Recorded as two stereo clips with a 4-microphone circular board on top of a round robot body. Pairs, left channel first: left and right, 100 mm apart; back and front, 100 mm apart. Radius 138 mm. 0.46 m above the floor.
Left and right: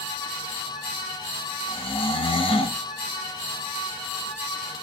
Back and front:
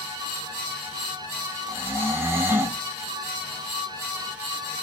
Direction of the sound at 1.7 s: 65° left.